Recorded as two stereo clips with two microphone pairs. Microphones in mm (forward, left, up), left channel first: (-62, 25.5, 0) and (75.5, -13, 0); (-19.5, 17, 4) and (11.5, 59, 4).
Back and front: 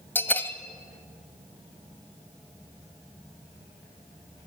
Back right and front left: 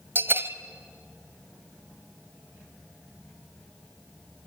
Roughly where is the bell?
Left.